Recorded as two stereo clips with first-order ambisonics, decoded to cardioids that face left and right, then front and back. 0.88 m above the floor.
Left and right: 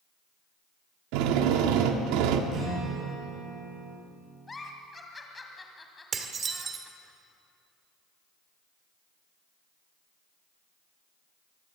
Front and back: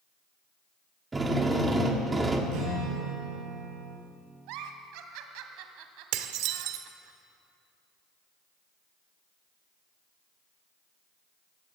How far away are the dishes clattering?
About 1.5 m.